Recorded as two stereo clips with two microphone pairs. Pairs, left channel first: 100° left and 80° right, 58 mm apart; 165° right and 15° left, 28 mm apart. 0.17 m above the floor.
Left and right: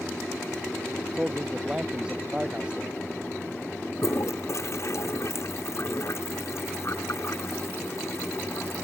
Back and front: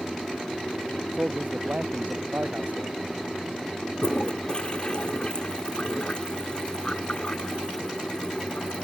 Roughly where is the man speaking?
Ahead.